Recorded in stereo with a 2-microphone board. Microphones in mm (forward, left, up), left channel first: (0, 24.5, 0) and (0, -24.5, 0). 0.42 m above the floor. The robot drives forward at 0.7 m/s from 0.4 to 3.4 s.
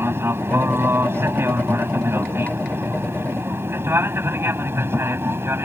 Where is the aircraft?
55° right (ahead or behind); by 5.7 s 60° right (ahead or behind).